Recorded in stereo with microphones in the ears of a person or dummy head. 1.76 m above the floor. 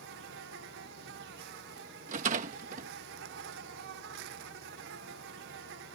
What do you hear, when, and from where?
0.0 s an insect: 70° right (ahead or behind)
2.1 s a rattle: 55° right (ahead or behind)